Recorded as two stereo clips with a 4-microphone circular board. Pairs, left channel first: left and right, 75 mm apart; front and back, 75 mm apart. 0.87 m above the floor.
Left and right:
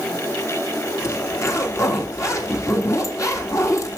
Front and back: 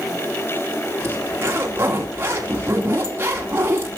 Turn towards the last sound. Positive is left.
turn(degrees=125)